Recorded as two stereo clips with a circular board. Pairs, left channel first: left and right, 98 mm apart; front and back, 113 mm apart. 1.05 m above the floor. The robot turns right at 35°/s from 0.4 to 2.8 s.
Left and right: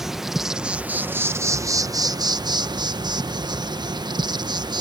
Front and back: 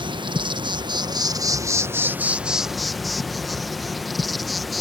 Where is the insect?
175° right; by 4.8 s 90° right.